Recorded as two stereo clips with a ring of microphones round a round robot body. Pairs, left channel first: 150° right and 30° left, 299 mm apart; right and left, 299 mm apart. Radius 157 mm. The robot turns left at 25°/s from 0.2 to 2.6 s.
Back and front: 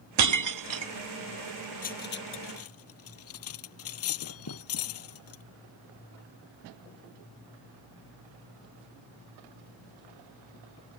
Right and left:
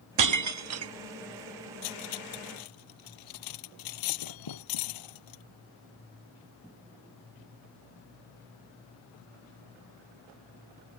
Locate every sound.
0.2 s breaking glass: 65° left; by 0.9 s 45° left
1.8 s cutlery clinking: 85° right; by 5.4 s 105° right